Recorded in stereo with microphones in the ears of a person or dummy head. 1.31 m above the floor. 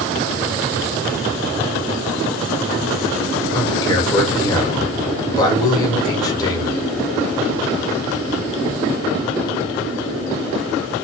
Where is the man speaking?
25° left (ahead or behind), 1.3 m.